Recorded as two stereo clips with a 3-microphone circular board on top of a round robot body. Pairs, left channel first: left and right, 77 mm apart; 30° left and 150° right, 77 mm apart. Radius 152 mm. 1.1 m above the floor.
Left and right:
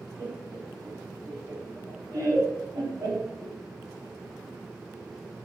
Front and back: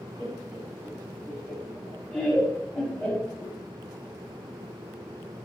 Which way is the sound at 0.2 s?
40° right.